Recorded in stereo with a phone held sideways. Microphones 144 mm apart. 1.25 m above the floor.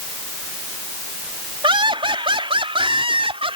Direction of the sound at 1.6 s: 40° right (ahead or behind).